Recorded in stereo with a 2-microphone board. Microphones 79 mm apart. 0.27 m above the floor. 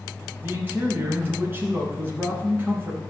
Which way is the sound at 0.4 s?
25° right (ahead or behind).